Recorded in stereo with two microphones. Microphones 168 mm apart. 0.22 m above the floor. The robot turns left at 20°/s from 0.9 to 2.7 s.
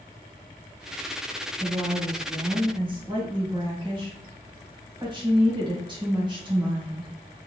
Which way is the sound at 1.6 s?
20° right (ahead or behind).